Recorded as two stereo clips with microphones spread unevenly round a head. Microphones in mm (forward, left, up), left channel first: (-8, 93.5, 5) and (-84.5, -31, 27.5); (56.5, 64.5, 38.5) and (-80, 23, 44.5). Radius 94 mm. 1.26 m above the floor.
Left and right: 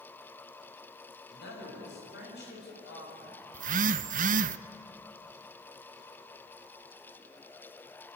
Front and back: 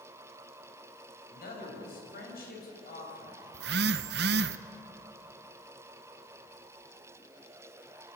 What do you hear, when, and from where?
1.3 s a man speaking: 30° left, 7 m
3.5 s a phone buzzing: 145° right, 0.6 m